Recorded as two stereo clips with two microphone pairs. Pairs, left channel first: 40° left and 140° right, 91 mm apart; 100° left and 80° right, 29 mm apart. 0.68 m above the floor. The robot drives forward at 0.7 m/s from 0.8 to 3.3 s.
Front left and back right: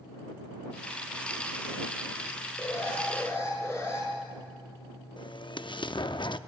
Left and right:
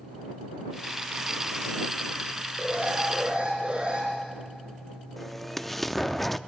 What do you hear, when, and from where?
2.6 s an alarm: 20° right, 6 m
5.2 s an explosion: 20° left, 0.5 m